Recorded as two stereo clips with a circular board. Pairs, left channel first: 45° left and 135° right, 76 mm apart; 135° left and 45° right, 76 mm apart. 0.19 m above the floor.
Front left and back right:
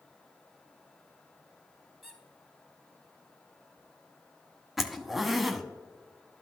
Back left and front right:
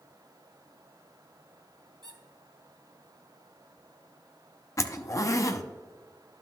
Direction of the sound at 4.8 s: 140° left.